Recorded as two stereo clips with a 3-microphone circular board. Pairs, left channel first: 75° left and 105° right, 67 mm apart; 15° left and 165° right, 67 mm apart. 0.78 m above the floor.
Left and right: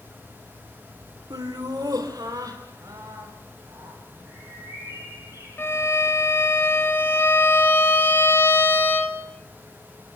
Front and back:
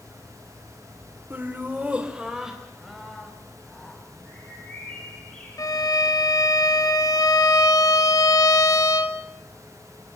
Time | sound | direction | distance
1.3 | laughter | 105° right | 2.5 m
4.2 | a bird | 55° right | 8.5 m
5.6 | a violin | 25° left | 1.6 m